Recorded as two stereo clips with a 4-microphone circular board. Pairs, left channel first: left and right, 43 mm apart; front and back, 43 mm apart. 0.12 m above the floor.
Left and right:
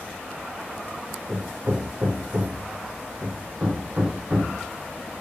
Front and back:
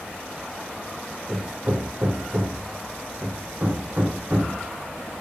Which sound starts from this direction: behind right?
Hammering, at 1.3 s.